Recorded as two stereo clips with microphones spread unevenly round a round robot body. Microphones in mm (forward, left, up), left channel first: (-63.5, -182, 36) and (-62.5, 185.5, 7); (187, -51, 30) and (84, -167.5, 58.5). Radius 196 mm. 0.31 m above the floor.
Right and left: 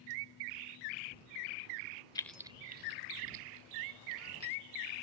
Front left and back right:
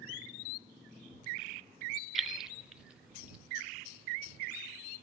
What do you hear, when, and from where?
2.1 s keys jangling: 15° right; by 4.6 s 140° left